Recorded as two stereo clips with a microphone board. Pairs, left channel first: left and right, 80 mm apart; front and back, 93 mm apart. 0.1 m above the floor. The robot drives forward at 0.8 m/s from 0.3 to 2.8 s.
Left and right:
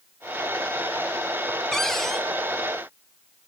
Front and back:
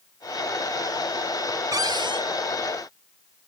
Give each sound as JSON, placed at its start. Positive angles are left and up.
{"t": 1.7, "sound": "a cupboard door", "azimuth_deg": 170, "distance_m": 0.5}